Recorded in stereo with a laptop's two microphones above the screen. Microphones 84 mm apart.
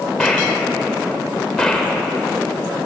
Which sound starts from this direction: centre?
A gunshot, at 0.2 s.